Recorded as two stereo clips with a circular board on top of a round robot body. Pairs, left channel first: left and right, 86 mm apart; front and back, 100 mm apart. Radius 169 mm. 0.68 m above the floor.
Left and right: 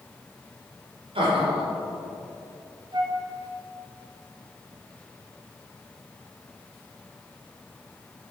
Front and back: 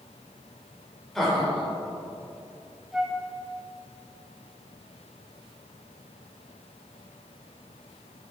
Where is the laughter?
90° right, 2.5 m.